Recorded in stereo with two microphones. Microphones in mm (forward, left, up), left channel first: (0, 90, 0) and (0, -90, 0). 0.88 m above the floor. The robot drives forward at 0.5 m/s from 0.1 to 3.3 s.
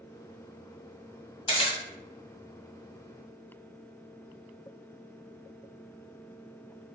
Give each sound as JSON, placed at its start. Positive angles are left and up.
{"t": 1.5, "sound": "a camera shutter", "side_deg": 30, "distance_m": 1.5}